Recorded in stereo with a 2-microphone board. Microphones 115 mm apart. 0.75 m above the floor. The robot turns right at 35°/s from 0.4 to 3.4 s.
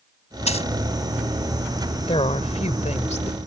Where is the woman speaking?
55° left; by 3.4 s 105° left.